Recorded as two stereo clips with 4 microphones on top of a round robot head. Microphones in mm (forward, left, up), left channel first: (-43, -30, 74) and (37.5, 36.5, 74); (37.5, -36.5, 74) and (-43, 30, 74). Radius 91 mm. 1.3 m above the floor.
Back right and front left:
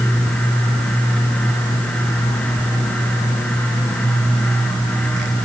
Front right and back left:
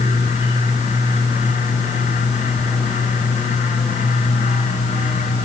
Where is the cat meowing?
I don't hear a cat meowing.